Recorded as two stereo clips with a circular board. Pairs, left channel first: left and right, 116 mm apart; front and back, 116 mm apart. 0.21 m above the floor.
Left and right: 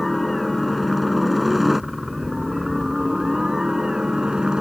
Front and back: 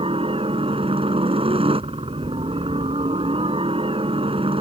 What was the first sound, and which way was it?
A helicopter, straight behind.